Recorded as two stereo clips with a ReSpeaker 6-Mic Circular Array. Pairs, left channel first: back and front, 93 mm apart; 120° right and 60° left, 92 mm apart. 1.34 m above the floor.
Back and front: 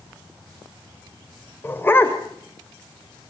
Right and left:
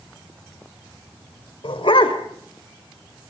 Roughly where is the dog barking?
Behind right.